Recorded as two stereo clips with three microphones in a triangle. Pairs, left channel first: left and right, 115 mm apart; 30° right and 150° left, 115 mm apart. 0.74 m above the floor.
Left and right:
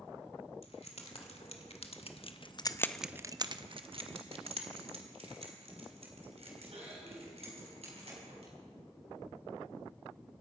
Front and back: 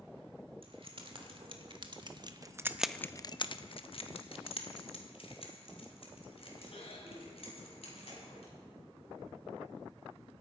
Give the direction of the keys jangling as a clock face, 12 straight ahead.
8 o'clock.